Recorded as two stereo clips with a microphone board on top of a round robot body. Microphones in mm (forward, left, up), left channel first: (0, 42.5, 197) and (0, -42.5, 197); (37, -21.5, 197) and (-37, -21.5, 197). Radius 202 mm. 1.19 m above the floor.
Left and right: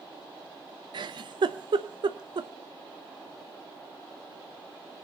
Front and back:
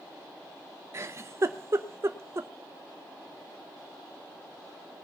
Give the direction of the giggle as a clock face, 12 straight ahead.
4 o'clock.